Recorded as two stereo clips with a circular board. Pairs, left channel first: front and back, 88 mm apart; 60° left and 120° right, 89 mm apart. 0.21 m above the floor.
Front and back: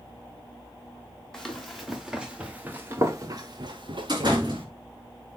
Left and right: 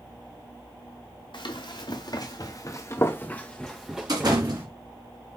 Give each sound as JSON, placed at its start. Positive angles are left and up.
{"t": 1.3, "sound": "running footsteps", "azimuth_deg": 85, "distance_m": 1.8}
{"t": 4.1, "sound": "a door slam", "azimuth_deg": -150, "distance_m": 2.5}